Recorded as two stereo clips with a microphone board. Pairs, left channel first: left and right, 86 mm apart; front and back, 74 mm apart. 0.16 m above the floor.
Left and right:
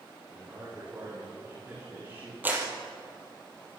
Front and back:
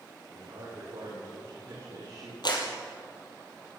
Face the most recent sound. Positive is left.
turn(degrees=-20)